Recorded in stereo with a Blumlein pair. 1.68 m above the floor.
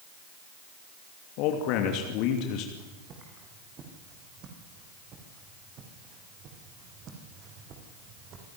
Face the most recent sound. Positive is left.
turn(degrees=-35)